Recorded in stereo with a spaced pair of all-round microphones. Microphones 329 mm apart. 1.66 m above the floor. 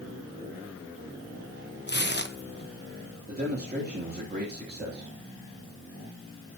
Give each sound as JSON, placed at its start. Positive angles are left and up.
{"t": 1.9, "sound": "tearing paper", "side_deg": 35, "distance_m": 1.0}
{"t": 3.3, "sound": "a man speaking", "side_deg": -30, "distance_m": 3.0}